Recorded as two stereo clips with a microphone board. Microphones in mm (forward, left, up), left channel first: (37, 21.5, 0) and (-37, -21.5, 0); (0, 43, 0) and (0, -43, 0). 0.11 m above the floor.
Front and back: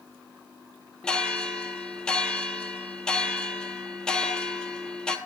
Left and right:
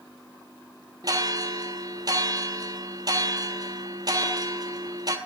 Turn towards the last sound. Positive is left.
turn(degrees=-50)